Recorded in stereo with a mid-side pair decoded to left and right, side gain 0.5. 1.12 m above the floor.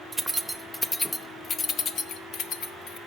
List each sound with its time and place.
0.1 s keys jangling: 15° right, 0.8 m; by 3.0 s 75° left, 1.3 m